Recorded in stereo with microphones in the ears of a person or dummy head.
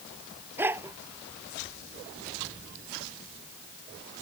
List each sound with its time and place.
0.6 s a dog barking: 15° right (ahead or behind)